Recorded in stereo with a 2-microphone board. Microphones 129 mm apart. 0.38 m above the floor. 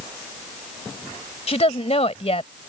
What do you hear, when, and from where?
1.5 s a woman speaking: 50° left (ahead or behind)